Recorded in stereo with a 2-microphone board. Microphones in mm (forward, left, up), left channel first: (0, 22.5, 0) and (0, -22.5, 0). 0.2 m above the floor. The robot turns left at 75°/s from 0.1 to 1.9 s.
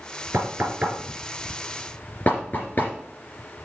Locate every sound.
0.3 s knocking: 65° right (ahead or behind), 3.5 m; by 2.9 s 40° left (ahead or behind), 3.5 m